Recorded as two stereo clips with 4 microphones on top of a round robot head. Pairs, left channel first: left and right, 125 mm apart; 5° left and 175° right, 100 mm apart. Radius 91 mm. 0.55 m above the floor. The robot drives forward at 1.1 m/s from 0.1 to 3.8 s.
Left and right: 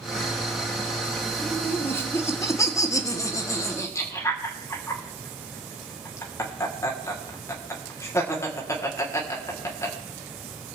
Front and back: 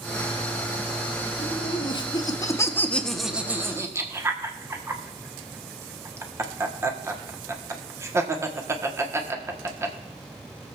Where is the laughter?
15° left, 2.5 m; by 10.0 s 145° left, 1.5 m.